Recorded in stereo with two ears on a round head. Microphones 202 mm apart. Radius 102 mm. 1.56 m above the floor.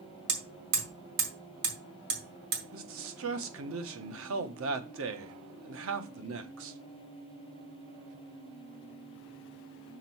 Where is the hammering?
50° right (ahead or behind), 3.5 m.